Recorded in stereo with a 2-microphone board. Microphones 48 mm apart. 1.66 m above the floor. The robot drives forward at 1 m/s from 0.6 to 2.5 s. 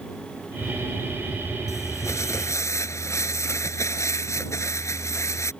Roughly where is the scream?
I don't hear a scream.